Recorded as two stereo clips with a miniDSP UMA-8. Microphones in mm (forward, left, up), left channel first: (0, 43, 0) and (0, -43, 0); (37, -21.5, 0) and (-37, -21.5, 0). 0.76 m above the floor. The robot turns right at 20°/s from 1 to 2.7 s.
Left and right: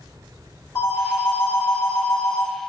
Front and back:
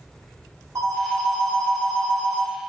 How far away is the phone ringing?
About 1.1 m.